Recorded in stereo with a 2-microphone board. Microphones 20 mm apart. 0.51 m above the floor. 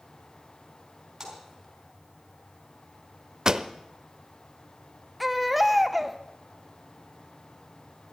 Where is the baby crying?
5° right (ahead or behind), 0.7 m.